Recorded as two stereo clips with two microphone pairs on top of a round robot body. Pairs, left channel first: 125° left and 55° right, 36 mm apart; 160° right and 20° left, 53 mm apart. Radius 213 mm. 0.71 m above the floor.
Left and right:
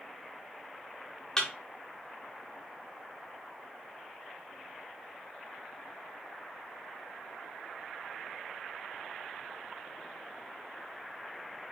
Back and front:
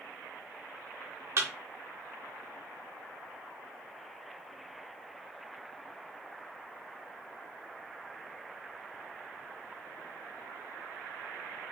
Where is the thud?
55° left, 0.6 m.